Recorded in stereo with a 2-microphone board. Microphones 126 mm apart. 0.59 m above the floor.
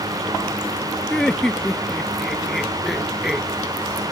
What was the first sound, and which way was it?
Laughter, 5° left (ahead or behind).